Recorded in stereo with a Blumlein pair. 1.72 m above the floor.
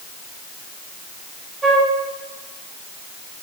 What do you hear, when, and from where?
1.6 s a flute: 15° right, 2 m